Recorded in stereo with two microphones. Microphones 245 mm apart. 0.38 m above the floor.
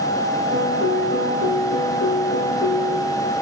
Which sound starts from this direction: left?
A piano, at 0.5 s.